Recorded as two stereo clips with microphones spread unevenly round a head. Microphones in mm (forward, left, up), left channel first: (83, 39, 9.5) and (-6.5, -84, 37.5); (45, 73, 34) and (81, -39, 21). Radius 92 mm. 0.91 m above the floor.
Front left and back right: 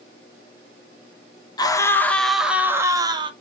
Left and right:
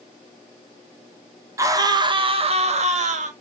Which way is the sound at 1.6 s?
10° right.